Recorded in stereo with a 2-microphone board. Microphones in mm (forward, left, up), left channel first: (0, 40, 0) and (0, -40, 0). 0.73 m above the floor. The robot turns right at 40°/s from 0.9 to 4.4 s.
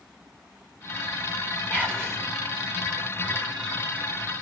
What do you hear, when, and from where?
1.7 s whispering: 20° left (ahead or behind), 2.5 m; by 2.2 s 5° left (ahead or behind), 2.5 m